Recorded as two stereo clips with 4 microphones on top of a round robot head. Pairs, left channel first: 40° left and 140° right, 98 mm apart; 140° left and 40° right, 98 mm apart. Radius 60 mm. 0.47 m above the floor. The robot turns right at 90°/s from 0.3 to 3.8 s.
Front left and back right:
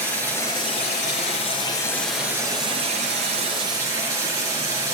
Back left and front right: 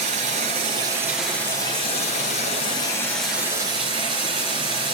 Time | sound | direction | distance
0.0 | running water | 35° right | 5.5 m